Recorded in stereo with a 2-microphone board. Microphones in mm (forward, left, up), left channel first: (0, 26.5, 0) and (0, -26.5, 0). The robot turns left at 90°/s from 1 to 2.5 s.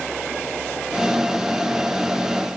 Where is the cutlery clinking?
No cutlery clinking in this recording.